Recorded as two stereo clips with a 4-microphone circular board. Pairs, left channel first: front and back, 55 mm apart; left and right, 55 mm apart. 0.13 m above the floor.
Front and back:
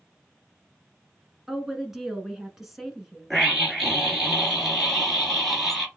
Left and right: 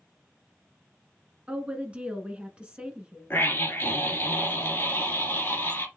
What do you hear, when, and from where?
1.5 s a woman speaking: 105° right, 1.2 m
3.3 s a scream: 90° left, 1.6 m